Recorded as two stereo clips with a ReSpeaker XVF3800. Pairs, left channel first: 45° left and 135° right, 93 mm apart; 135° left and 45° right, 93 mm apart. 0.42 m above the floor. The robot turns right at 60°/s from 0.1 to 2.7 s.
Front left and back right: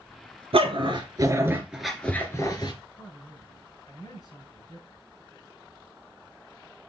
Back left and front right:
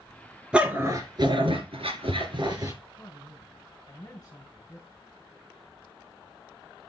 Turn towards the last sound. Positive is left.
turn(degrees=100)